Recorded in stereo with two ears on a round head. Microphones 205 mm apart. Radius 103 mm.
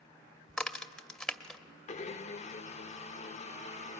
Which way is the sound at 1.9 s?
30° left (ahead or behind).